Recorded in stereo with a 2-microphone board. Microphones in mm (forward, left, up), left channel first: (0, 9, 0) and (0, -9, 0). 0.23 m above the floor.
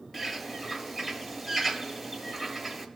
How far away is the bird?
About 1.4 m.